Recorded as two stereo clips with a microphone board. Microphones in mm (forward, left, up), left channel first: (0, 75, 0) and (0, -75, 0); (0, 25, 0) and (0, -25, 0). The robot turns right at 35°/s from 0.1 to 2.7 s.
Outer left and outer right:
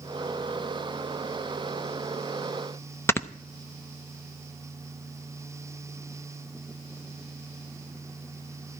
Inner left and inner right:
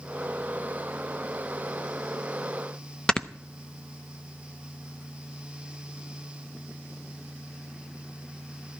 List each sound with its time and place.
3.1 s snoring: 15° left (ahead or behind), 0.6 m